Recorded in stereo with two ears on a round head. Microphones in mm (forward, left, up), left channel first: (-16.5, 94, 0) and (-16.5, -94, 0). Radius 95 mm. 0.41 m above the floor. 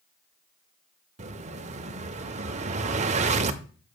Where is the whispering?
No whispering in this recording.